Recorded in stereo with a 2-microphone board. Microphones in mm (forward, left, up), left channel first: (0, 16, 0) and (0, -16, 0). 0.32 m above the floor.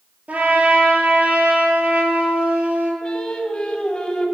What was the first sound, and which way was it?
A trumpet, 50° right (ahead or behind).